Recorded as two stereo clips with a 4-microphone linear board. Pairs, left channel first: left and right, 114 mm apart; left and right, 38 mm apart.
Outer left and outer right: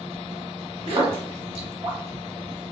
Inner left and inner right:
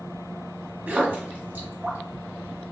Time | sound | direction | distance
0.9 | a splash | 50° right (ahead or behind) | 1.0 m